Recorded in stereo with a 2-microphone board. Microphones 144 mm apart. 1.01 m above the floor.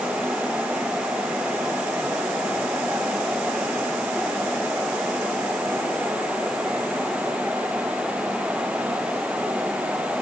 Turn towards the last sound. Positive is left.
No sound to turn to.